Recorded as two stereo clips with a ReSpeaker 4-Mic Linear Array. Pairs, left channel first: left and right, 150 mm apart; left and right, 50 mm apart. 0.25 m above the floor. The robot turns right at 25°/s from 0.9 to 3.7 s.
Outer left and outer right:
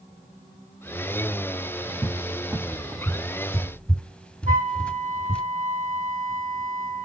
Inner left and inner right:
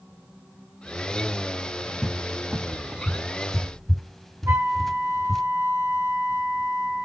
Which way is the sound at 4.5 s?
60° right (ahead or behind).